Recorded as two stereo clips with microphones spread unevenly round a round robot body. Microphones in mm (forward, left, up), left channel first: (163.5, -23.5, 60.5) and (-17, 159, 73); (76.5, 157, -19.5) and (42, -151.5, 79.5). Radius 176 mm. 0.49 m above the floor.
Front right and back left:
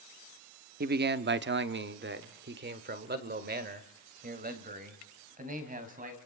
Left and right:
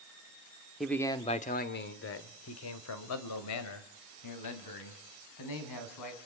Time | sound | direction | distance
0.8 | a man speaking | 145° left | 0.9 m